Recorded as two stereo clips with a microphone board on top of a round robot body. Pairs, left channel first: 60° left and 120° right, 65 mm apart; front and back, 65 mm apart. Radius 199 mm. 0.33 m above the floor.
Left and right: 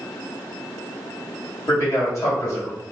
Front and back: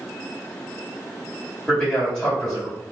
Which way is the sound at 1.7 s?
85° left.